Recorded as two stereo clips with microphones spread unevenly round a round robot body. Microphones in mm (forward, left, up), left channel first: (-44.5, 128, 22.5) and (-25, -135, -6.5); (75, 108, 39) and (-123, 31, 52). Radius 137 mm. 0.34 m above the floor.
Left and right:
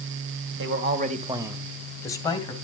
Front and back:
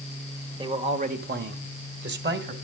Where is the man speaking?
90° right, 1.6 m; by 2.5 s 165° left, 2.5 m.